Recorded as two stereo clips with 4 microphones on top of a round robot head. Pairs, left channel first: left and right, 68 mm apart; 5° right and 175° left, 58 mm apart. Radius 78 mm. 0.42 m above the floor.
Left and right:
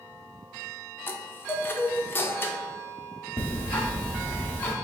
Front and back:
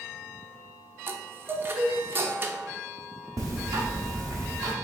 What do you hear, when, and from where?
1.1 s a chime: 140° left, 0.6 m
3.4 s ticking: 155° left, 0.8 m